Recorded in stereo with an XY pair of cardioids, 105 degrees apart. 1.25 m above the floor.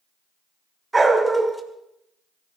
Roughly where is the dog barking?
Ahead.